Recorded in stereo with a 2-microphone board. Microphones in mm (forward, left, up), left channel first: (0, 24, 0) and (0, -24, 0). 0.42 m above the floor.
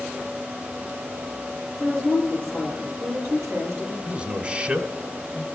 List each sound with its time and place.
1.8 s a woman speaking: 65° right (ahead or behind), 8 m
4.0 s a man speaking: 25° right (ahead or behind), 1.8 m